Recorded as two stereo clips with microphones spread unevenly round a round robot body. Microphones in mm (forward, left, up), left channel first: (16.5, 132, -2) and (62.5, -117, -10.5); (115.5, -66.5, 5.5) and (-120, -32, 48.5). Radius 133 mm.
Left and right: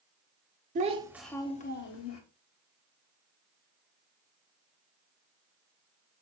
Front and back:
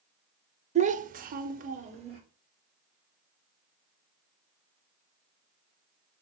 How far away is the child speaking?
About 0.6 m.